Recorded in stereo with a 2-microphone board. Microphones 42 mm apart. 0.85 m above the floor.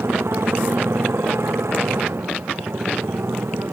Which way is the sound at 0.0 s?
85° right.